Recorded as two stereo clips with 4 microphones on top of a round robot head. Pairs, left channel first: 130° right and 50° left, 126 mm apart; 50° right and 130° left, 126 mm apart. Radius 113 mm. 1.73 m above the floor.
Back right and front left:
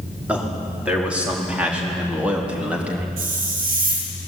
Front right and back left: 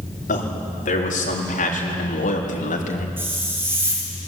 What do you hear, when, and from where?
0.3 s a man speaking: 30° right, 5 m
3.2 s a hiss: 55° left, 4 m